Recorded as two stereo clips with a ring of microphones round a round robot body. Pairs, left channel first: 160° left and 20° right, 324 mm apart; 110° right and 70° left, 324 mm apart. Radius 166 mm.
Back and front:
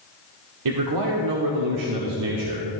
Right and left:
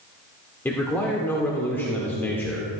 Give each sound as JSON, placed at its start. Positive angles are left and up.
{"t": 0.7, "sound": "a man speaking", "azimuth_deg": -30, "distance_m": 1.2}